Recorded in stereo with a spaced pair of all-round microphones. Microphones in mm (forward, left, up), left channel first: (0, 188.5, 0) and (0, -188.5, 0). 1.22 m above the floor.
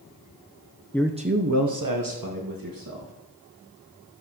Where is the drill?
No drill in this recording.